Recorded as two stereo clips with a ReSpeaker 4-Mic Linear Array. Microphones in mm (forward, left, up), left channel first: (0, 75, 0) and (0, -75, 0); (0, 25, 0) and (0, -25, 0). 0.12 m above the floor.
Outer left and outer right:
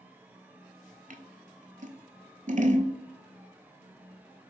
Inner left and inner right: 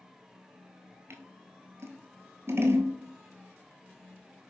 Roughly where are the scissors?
Right.